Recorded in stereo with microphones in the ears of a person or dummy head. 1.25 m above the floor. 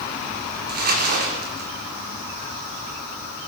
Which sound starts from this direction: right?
Crumpling, at 0.7 s.